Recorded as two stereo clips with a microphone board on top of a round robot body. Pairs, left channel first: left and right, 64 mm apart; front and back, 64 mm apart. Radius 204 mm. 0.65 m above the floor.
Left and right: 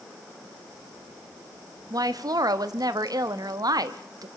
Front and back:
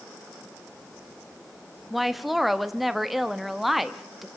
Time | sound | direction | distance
1.9 | a woman speaking | 90° right | 1.2 m